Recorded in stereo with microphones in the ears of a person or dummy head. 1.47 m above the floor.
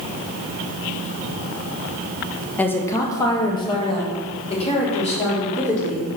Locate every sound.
2.6 s a woman speaking: 10° left (ahead or behind), 1.0 m; by 6.1 s 45° left (ahead or behind), 3 m